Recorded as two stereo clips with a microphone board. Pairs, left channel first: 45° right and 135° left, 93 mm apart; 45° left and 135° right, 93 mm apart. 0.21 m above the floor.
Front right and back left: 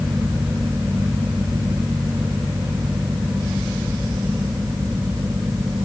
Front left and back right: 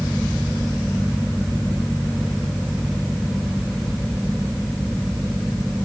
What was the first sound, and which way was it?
Only background noise.